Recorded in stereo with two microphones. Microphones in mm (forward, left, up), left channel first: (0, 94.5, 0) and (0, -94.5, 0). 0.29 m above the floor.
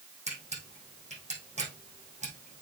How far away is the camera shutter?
About 4.5 m.